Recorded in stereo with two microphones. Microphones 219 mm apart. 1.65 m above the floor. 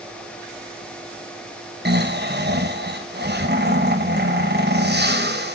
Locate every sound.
1.9 s snoring: 50° right (ahead or behind), 1.2 m